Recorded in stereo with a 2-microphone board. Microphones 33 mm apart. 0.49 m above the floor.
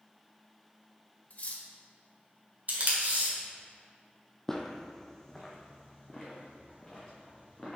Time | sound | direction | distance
1.3 | cutlery clinking | 45° left (ahead or behind) | 0.8 m
2.7 | tape being pulled | 55° right (ahead or behind) | 1.8 m
4.5 | footsteps | 15° left (ahead or behind) | 0.7 m